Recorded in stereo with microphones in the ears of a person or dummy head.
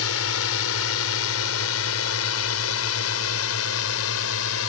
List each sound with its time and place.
0.0 s a drone: 80° left